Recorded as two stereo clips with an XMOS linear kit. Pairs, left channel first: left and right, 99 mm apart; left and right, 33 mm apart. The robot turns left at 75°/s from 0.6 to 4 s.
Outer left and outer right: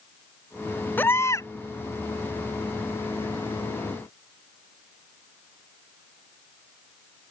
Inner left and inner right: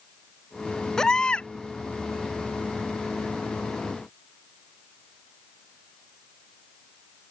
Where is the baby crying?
150° left; by 1.5 s 110° left.